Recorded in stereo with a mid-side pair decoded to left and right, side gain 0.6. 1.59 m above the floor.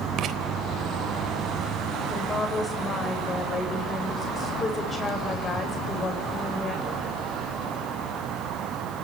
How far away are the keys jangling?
No keys jangling in this recording.